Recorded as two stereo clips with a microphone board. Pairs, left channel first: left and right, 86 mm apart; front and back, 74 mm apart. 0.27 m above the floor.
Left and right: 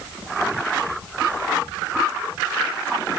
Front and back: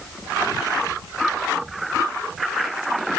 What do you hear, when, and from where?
Only background noise.